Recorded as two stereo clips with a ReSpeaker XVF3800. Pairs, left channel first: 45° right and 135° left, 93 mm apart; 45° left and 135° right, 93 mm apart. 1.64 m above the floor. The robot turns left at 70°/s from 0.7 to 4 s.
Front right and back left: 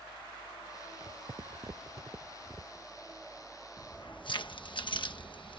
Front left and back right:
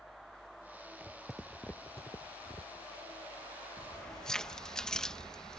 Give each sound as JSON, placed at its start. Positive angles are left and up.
{"t": 1.0, "sound": "footsteps", "azimuth_deg": 170}
{"t": 3.8, "sound": "keys jangling", "azimuth_deg": -20}